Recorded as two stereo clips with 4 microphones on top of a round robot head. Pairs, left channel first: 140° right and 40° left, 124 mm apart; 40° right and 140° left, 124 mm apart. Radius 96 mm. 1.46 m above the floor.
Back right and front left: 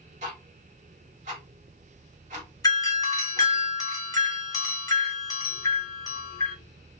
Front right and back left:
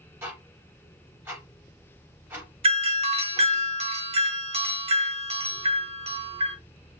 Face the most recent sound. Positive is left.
turn(degrees=165)